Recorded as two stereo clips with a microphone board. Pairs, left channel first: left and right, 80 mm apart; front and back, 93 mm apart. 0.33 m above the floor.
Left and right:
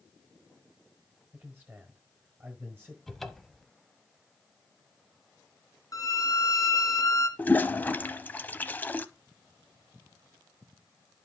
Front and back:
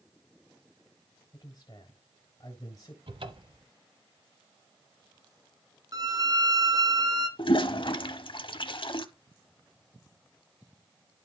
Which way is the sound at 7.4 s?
20° left.